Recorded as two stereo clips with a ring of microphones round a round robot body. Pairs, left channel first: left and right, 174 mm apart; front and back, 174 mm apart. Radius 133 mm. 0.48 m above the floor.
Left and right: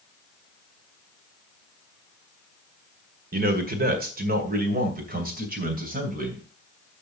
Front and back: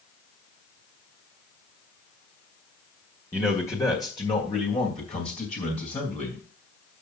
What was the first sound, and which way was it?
A man speaking, 80° right.